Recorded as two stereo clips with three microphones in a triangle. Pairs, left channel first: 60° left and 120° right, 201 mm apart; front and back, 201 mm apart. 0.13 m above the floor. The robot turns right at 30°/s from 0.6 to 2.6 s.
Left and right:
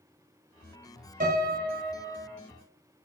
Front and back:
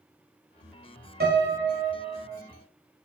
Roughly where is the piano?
Behind.